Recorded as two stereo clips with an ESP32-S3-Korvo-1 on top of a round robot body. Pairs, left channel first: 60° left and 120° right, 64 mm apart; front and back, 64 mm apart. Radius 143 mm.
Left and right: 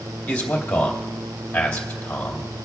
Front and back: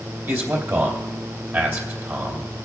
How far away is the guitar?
I don't hear a guitar.